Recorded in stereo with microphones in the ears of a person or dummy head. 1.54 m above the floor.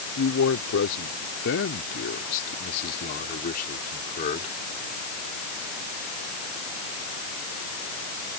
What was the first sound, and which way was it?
A man speaking, 85° left.